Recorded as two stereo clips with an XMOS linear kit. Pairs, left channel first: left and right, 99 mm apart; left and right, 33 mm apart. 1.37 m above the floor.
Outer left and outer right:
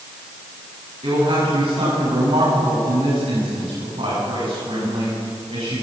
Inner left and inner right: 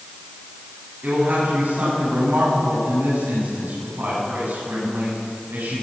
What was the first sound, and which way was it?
A woman speaking, 85° right.